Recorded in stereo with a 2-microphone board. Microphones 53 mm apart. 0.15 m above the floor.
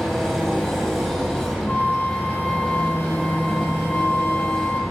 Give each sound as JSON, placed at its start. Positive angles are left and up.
{"t": 0.0, "sound": "an engine running", "side_deg": -5, "distance_m": 2.5}
{"t": 1.7, "sound": "a flute", "side_deg": 35, "distance_m": 0.8}